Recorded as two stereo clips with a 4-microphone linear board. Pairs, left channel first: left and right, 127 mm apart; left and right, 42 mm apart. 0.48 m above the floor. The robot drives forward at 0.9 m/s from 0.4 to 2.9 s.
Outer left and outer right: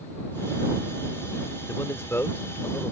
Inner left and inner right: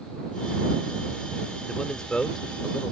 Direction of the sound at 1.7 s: 25° left (ahead or behind).